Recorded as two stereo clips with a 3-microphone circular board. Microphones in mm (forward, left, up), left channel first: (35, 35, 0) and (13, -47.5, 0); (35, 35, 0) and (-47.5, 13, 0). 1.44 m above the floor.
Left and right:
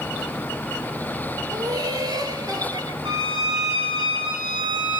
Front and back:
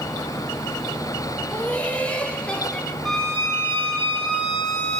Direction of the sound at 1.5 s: 60° right.